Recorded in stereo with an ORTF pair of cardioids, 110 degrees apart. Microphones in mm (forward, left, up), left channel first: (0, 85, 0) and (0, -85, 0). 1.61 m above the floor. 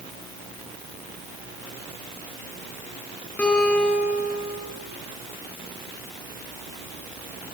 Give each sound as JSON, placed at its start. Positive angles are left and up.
{"t": 3.4, "sound": "a guitar", "azimuth_deg": 10, "distance_m": 9.0}